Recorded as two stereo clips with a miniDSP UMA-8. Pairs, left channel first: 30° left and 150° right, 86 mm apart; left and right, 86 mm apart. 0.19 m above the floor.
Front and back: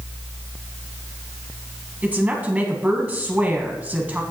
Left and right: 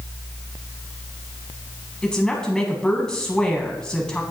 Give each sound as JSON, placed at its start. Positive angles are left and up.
{"t": 2.0, "sound": "a woman speaking", "azimuth_deg": 160, "distance_m": 1.3}